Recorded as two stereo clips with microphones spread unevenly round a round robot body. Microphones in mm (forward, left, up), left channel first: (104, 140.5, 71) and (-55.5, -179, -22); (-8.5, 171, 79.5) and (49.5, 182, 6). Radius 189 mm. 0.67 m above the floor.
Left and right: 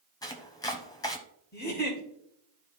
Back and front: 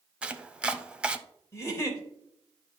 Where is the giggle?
130° left, 2.5 m.